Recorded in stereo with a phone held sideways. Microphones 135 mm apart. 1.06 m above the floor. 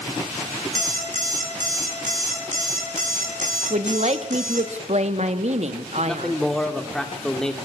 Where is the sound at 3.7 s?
55° right (ahead or behind), 1.5 m.